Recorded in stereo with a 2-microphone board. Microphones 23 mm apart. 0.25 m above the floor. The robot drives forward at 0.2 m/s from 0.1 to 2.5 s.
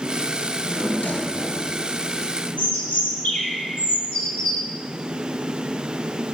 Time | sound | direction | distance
0.4 | a drawer | 65° left (ahead or behind) | 2.5 m
2.6 | a bird | 80° left | 6 m